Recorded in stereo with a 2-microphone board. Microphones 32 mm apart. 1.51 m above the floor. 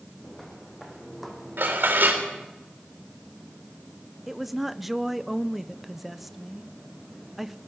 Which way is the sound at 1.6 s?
75° right (ahead or behind).